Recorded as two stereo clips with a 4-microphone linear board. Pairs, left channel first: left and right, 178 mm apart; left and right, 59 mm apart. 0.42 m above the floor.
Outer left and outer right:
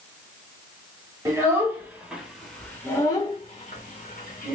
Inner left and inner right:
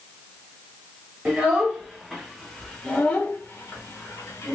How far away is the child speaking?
About 1.3 m.